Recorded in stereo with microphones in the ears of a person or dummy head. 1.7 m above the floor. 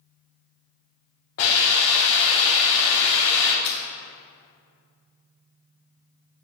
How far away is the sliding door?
I don't hear a sliding door.